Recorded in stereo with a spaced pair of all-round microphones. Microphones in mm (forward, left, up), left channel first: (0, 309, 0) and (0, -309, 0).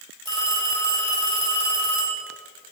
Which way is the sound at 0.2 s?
55° right (ahead or behind).